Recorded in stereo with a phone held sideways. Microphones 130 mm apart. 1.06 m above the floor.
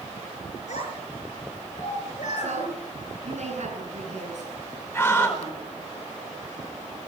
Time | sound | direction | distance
0.7 | a child speaking | 65° left (ahead or behind) | 8 m
2.4 | a woman speaking | 65° right (ahead or behind) | 10 m
4.9 | a scream | 15° left (ahead or behind) | 5 m